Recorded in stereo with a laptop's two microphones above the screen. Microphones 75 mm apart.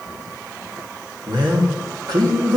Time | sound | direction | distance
1.3 | a man speaking | 70° right (ahead or behind) | 1.8 m